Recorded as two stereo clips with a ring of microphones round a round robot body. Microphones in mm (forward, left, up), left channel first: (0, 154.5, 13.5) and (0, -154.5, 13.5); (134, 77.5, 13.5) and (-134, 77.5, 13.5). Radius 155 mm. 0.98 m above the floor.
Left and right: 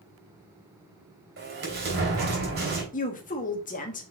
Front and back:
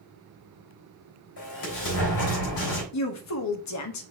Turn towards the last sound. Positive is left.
turn(degrees=25)